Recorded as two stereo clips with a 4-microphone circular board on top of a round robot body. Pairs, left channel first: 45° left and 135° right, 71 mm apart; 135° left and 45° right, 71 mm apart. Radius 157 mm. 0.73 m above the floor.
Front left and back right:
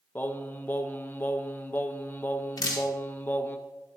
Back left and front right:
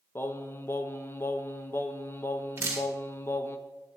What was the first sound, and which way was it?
Singing, 95° left.